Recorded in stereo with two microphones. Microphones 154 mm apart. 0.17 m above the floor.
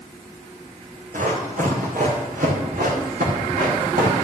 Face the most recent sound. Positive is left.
turn(degrees=-85)